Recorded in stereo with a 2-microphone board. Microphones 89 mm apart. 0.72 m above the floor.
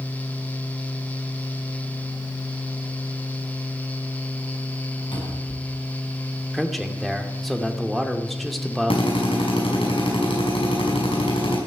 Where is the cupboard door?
60° left (ahead or behind), 5.5 m.